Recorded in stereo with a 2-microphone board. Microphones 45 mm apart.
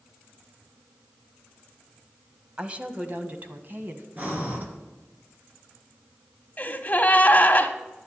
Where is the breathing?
40° right (ahead or behind), 3 m.